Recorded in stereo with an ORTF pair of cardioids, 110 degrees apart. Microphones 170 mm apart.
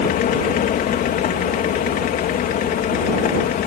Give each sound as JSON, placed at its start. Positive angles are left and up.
{"t": 0.0, "sound": "a fan", "azimuth_deg": 60}